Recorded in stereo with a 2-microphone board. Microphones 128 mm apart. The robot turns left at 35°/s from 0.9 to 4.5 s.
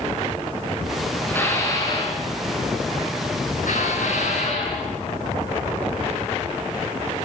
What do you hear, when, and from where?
1.3 s dishes clattering: 165° left, 9 m; by 4.9 s 55° left, 9 m